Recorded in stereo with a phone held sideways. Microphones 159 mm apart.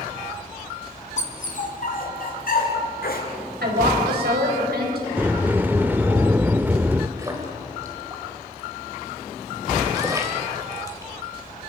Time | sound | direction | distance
1.2 | a dog barking | 50° left (ahead or behind) | 2 m
3.6 | a woman speaking | 80° right | 5 m
5.2 | a sliding door | 10° right (ahead or behind) | 0.5 m
7.2 | a splash | 20° right (ahead or behind) | 3.5 m